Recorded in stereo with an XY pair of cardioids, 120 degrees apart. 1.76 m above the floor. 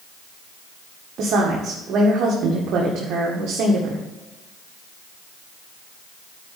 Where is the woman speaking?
60° right, 1.8 m.